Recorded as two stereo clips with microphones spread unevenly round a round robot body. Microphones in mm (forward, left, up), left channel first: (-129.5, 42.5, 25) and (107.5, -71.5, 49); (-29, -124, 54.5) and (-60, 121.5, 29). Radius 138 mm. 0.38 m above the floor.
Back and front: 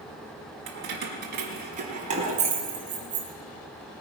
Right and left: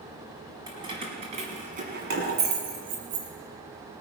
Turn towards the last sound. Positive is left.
turn(degrees=50)